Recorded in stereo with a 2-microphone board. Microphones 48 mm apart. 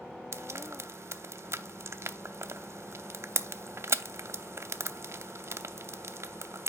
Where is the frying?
60° right (ahead or behind), 0.5 m.